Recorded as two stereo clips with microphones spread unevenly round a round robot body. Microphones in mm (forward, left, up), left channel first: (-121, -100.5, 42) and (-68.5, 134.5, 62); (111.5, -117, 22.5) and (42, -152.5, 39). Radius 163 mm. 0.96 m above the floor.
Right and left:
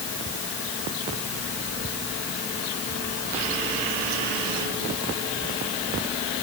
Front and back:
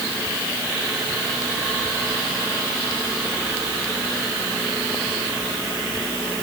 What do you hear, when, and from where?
Only background noise.